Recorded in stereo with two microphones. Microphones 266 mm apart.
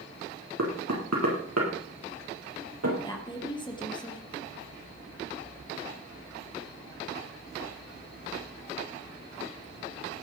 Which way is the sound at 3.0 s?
15° left (ahead or behind).